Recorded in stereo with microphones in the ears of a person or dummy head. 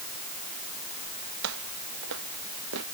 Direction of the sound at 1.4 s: 75° right (ahead or behind).